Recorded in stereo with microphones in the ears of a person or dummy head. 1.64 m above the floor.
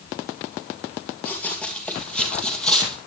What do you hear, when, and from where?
1.2 s running footsteps: 10° left (ahead or behind), 2.5 m